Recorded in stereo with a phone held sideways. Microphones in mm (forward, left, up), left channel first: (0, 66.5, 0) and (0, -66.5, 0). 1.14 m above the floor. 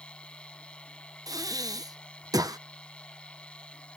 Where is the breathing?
30° right (ahead or behind).